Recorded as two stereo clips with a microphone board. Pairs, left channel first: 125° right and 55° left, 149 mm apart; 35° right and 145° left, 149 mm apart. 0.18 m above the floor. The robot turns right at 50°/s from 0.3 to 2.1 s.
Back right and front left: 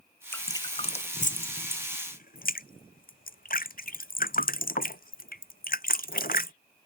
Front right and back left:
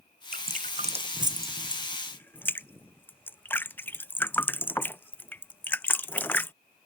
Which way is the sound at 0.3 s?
160° left.